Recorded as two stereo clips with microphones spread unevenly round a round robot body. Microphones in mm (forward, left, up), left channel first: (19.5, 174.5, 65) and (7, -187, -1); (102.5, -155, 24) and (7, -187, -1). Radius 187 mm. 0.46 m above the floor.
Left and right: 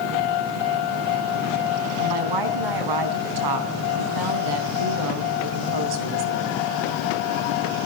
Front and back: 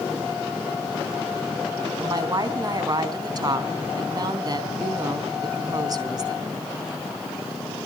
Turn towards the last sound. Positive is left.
turn(degrees=-115)